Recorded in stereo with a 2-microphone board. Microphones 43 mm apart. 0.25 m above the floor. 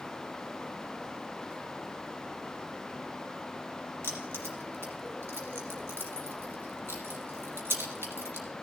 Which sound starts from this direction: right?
Keys jangling, at 4.0 s.